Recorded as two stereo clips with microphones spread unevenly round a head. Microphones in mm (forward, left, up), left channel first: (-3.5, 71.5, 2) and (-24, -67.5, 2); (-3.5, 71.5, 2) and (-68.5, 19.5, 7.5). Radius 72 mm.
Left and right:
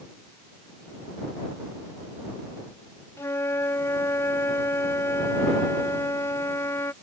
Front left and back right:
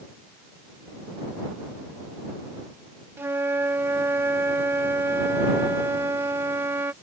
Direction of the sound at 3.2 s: 155° left.